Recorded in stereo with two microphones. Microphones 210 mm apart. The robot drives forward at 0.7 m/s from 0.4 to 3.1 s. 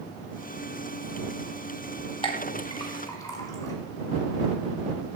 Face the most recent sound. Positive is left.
turn(degrees=15)  # may be behind; listen again after turning